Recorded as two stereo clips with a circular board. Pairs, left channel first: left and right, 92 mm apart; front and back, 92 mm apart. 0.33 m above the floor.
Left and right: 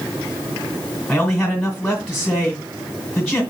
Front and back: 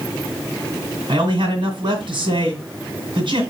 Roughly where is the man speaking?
Behind.